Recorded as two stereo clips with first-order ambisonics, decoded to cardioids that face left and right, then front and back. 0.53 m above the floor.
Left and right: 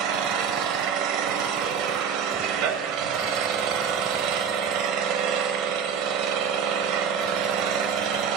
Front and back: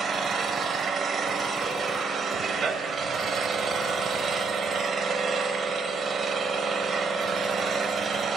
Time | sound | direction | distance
0.0 | an engine running | 110° right | 0.7 m